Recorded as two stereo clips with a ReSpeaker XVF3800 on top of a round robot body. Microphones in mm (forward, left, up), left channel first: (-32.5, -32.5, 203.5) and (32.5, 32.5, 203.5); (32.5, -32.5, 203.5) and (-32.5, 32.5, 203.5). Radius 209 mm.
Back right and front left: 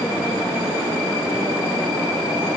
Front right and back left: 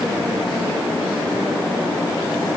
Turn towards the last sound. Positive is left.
No sound to turn to.